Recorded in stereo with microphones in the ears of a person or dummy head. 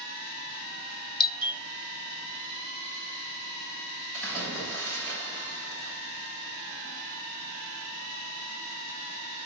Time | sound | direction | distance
1.2 | a doorbell | 25° left (ahead or behind) | 1.6 m
4.1 | a splash | 10° left (ahead or behind) | 8 m